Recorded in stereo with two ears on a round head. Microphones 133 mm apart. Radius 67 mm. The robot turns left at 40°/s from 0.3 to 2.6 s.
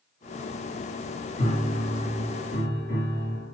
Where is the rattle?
No rattle in this recording.